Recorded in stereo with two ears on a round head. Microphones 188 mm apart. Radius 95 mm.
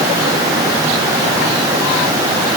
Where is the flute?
I don't hear a flute.